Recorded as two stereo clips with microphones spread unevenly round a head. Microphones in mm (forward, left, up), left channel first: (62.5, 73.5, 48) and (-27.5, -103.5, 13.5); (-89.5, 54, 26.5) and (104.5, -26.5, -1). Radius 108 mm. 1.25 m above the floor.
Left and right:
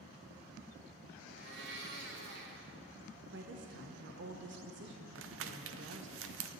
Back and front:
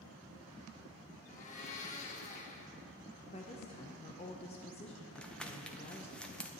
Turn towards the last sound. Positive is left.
turn(degrees=-115)